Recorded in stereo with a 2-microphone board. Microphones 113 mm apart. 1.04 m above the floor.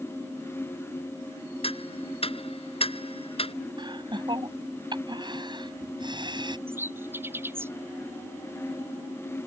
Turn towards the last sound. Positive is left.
turn(degrees=-20)  # may be behind; listen again after turning